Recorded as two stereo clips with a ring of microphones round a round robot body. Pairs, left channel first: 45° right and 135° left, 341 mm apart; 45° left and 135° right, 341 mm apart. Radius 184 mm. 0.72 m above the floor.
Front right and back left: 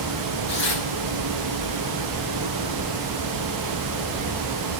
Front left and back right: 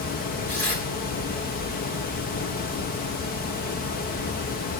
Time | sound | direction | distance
0.5 | tearing paper | 25° right | 7.5 m